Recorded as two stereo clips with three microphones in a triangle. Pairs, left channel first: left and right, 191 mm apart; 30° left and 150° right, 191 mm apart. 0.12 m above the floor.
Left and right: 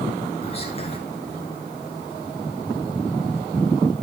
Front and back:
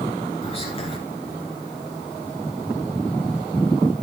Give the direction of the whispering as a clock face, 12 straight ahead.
10 o'clock.